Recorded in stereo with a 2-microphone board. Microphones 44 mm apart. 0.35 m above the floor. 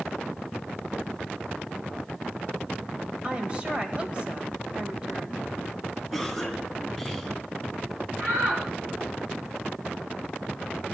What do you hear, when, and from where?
3.2 s a woman speaking: 30° right (ahead or behind), 1.3 m
6.1 s a cough: 5° right (ahead or behind), 2.5 m
8.2 s a shout: 55° right (ahead or behind), 4.5 m